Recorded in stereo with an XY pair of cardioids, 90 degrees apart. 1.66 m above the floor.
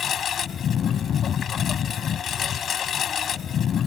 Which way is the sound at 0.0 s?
70° left.